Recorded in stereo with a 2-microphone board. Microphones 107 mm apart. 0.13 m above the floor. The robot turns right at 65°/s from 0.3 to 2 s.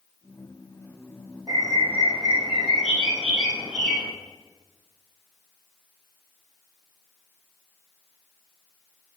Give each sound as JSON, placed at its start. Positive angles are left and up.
{"t": 1.5, "sound": "a bird", "azimuth_deg": -40, "distance_m": 3.5}